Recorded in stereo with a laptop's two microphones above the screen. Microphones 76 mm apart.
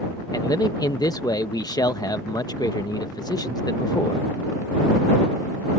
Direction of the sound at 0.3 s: 60° left (ahead or behind).